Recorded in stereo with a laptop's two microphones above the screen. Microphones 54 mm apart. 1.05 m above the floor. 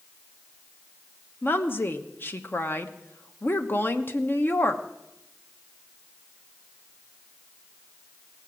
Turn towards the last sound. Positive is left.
turn(degrees=40)  # may be behind; listen again after turning